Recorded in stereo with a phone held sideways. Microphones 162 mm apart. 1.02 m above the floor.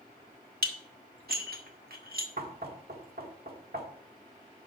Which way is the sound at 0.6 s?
70° right (ahead or behind).